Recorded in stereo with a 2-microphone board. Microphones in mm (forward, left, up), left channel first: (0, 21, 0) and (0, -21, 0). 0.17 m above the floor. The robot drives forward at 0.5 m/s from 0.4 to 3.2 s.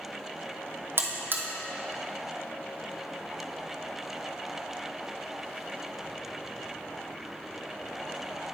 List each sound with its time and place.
1.0 s a buzzer: 65° right (ahead or behind), 1.0 m; by 1.4 s 55° right (ahead or behind), 1.1 m